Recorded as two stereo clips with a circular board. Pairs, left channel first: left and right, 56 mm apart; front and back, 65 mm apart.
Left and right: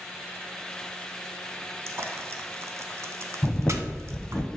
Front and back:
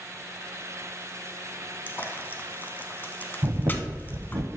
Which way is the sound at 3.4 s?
165° left.